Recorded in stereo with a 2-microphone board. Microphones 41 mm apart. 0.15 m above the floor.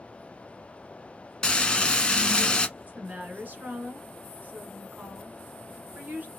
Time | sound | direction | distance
1.4 | frying | 20° left (ahead or behind) | 0.9 m
2.8 | a woman speaking | 45° right (ahead or behind) | 1.8 m